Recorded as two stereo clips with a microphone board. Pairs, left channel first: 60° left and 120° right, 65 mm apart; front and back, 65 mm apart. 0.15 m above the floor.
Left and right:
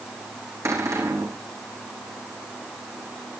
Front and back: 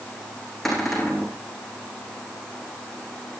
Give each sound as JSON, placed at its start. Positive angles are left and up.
{"t": 0.7, "sound": "a cupboard door", "azimuth_deg": -90, "distance_m": 5.0}